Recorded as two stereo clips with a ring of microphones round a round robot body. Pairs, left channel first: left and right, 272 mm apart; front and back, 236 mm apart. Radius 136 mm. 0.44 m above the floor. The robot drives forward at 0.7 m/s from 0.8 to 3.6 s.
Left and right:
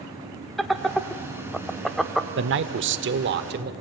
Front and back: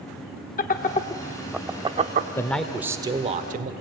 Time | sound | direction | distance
0.6 | laughter | straight ahead | 0.9 m
2.4 | a man speaking | 75° right | 1.2 m